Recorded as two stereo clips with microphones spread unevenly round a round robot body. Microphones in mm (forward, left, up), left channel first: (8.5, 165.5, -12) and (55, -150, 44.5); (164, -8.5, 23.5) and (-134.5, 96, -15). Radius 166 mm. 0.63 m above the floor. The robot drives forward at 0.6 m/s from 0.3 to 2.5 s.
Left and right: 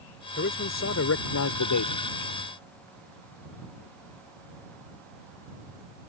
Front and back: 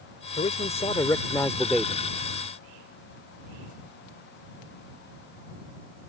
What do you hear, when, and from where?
0.4 s a man speaking: 50° left; by 2.0 s 80° left